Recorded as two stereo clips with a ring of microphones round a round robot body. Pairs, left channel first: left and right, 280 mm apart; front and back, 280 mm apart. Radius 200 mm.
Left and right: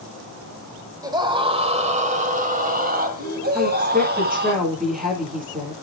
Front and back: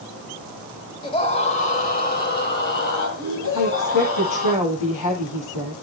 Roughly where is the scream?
Ahead right.